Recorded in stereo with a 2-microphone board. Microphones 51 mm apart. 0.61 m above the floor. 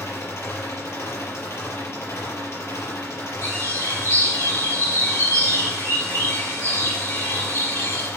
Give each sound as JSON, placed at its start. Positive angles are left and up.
{"t": 0.0, "sound": "an engine running", "side_deg": 60, "distance_m": 5.0}
{"t": 3.4, "sound": "a bird", "side_deg": 60, "distance_m": 8.5}